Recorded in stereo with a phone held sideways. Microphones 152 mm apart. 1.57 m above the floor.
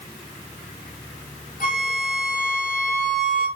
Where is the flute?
65° left (ahead or behind), 5.5 m.